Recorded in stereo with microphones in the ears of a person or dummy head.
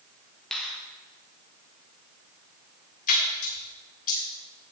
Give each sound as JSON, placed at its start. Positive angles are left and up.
{"t": 0.5, "sound": "a finger snap", "side_deg": -5, "distance_m": 1.3}
{"t": 3.1, "sound": "a splash", "side_deg": 50, "distance_m": 1.8}